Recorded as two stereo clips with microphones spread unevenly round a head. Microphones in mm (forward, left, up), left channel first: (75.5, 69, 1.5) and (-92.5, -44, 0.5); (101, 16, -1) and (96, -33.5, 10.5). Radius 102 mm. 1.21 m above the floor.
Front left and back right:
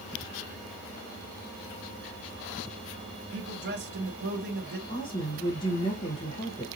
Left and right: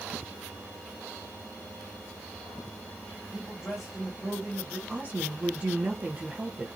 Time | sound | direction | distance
3.3 | a man speaking | 175° left | 1.5 m
4.9 | a woman speaking | 35° right | 1.2 m